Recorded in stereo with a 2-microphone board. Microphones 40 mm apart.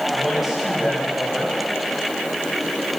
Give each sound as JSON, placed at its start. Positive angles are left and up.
{"t": 0.1, "sound": "a woman speaking", "side_deg": 0, "distance_m": 7.0}